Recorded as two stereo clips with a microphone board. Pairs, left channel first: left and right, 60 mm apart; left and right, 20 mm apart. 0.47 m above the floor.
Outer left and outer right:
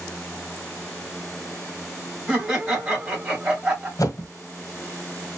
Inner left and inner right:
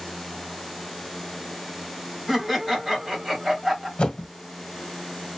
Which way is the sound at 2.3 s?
25° right (ahead or behind).